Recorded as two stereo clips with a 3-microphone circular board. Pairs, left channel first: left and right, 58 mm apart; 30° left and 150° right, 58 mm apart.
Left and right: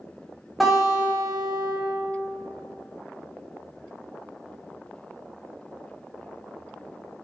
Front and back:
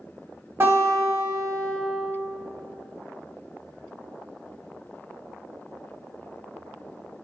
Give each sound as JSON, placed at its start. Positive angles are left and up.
{"t": 0.6, "sound": "a guitar", "azimuth_deg": 180, "distance_m": 0.9}